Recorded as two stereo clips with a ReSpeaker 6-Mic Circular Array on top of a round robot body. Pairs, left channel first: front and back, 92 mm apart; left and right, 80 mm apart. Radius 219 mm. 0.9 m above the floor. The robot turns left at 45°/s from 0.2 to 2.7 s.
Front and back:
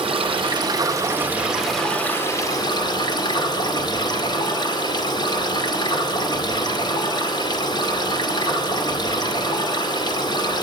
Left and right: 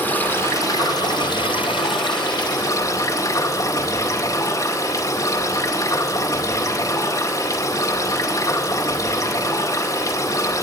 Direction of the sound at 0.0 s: 155° left.